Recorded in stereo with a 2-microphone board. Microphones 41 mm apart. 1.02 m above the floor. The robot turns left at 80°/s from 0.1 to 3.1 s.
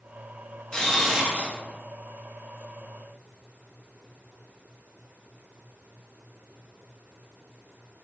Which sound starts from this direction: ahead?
A camera shutter, at 0.7 s.